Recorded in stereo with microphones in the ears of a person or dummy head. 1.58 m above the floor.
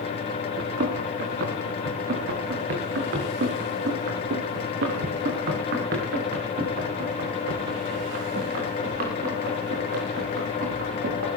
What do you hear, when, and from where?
0.6 s running footsteps: 55° right (ahead or behind), 3.5 m